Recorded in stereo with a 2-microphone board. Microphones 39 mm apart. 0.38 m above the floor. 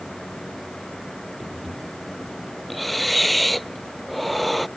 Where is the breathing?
Centre (ahead or behind).